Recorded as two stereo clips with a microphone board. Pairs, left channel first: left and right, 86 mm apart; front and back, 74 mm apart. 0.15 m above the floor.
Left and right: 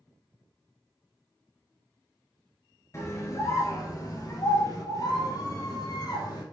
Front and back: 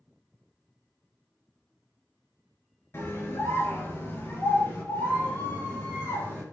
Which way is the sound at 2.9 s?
45° left.